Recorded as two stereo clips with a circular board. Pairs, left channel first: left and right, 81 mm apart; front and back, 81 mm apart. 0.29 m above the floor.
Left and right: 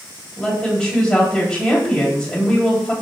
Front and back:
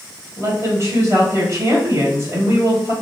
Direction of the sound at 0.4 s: 165° left.